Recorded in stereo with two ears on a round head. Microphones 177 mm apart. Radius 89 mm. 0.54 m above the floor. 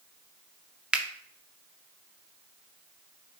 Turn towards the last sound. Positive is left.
turn(degrees=-5)  # may be behind; listen again after turning